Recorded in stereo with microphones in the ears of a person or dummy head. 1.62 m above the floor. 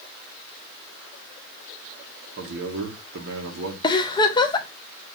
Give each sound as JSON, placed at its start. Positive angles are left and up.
{"t": 2.4, "sound": "a man speaking", "side_deg": -60, "distance_m": 1.4}
{"t": 3.8, "sound": "a giggle", "side_deg": 25, "distance_m": 0.5}